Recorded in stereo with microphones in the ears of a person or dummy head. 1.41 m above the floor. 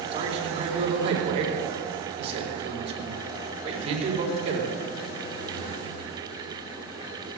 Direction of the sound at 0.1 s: 30° right (ahead or behind).